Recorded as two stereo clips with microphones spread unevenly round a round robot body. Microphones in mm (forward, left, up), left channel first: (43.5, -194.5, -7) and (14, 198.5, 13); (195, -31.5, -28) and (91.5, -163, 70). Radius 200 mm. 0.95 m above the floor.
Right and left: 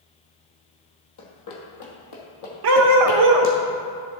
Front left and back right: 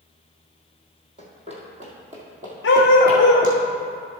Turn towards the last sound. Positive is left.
turn(degrees=105)